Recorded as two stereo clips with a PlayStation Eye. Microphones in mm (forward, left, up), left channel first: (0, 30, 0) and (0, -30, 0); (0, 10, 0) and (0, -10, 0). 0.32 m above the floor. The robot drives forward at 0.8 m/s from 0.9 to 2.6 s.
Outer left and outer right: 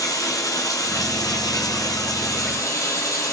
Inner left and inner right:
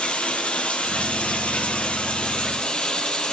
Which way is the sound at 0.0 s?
70° left (ahead or behind).